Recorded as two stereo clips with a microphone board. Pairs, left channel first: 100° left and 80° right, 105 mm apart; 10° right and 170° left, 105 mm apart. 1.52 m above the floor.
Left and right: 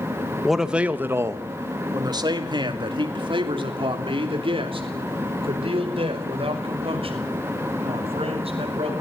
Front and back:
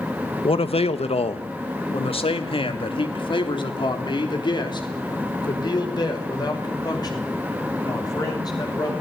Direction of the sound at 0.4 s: 10° left.